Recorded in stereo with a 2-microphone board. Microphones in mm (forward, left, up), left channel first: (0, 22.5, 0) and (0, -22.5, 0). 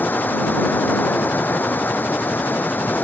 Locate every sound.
0.0 s running water: 50° left (ahead or behind)